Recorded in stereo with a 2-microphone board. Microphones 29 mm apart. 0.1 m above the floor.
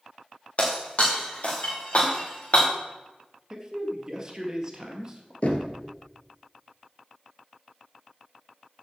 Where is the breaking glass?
50° left (ahead or behind), 3 m.